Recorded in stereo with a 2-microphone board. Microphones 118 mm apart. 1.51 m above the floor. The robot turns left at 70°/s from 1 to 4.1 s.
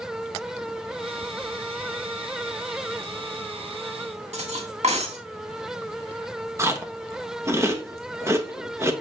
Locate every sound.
4.3 s cutlery clinking: 70° right (ahead or behind), 1.9 m
6.6 s chewing: 25° right (ahead or behind), 1.2 m